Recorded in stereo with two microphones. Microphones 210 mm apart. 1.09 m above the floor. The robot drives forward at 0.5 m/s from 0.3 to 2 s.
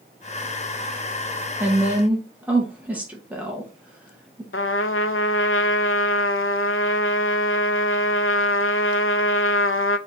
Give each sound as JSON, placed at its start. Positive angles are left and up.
{"t": 1.6, "sound": "a woman speaking", "side_deg": -10, "distance_m": 0.8}
{"t": 4.5, "sound": "a trumpet", "side_deg": 70, "distance_m": 0.5}